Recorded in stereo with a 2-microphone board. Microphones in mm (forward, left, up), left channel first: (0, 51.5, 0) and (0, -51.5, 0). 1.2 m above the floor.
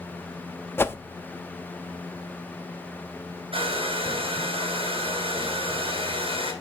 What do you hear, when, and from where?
0.8 s a whoosh: 20° left (ahead or behind), 0.6 m
3.5 s a hair dryer: 65° right (ahead or behind), 5.5 m